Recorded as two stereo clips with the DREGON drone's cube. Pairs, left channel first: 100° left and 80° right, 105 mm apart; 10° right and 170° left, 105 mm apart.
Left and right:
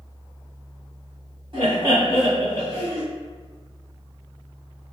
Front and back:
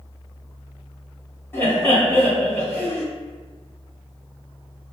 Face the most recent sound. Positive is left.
turn(degrees=-80)